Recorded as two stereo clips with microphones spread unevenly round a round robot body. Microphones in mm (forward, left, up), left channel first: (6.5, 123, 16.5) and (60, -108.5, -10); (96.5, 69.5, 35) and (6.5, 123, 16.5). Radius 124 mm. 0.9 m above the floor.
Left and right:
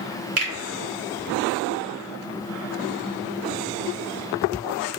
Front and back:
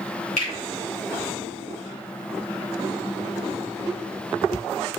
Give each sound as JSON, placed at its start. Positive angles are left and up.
{"t": 0.4, "sound": "a finger snap", "azimuth_deg": -55, "distance_m": 2.5}